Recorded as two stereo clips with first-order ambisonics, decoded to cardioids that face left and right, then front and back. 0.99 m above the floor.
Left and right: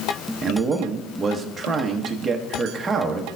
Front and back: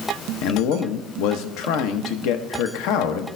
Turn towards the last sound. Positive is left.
turn(degrees=-15)